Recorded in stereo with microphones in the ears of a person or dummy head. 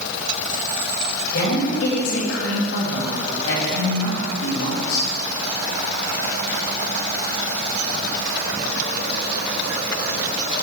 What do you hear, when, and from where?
1.3 s a woman speaking: 85° left, 3 m